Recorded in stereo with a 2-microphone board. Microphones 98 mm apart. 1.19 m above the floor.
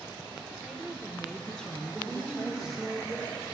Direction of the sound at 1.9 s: 5° right (ahead or behind).